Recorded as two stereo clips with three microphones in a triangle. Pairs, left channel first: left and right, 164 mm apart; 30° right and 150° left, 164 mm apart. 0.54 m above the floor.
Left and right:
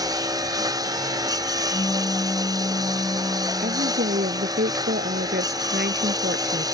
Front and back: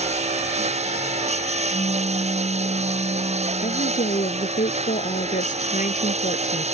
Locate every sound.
0.0 s a lawn mower: 160° right
1.7 s a pop: 25° left
3.6 s a woman speaking: 75° right